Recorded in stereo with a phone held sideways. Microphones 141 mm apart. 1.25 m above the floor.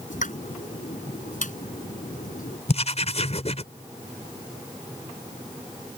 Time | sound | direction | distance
0.1 | a pop | 70° left (ahead or behind) | ?
2.7 | writing | 50° left (ahead or behind) | ?